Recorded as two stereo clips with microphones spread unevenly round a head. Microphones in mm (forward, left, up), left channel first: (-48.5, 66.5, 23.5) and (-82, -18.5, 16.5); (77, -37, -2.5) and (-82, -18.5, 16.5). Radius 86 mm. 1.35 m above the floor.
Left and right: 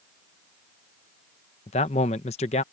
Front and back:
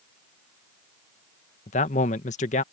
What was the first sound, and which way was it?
A man speaking, 45° left.